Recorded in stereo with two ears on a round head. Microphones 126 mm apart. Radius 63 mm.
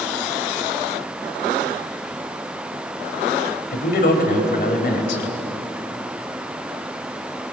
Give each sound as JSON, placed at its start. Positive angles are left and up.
{"t": 3.7, "sound": "a man speaking", "side_deg": 70, "distance_m": 3.0}